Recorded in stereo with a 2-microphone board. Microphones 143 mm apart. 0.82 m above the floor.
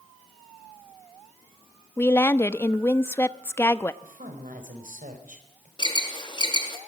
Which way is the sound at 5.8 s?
35° left (ahead or behind).